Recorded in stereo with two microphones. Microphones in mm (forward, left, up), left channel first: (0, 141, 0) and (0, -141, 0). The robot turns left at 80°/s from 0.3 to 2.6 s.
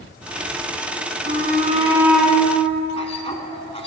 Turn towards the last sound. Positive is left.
turn(degrees=20)  # may be behind; listen again after turning